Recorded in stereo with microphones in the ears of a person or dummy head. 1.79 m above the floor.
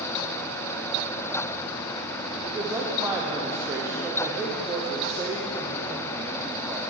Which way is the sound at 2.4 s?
15° right (ahead or behind).